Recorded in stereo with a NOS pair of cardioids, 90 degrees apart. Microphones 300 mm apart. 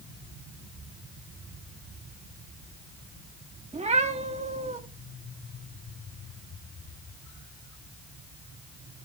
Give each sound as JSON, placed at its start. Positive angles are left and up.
{"t": 3.7, "sound": "a cat meowing", "azimuth_deg": -20, "distance_m": 1.4}